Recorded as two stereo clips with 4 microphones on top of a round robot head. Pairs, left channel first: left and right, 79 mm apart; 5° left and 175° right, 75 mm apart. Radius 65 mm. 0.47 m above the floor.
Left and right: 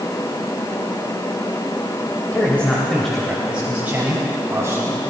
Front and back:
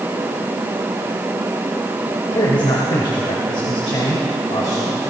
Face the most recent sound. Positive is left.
turn(degrees=-40)